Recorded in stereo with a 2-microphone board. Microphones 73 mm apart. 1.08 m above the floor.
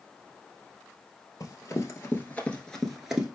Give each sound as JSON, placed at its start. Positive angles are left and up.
{"t": 1.4, "sound": "running footsteps", "side_deg": 45, "distance_m": 1.4}